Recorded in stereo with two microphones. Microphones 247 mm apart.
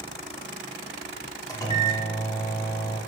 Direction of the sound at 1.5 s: 15° left (ahead or behind).